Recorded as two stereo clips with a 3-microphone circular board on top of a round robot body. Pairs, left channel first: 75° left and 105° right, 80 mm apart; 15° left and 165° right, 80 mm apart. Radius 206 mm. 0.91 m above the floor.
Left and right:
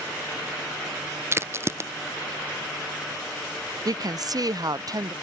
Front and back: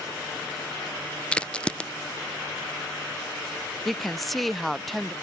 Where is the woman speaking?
75° right.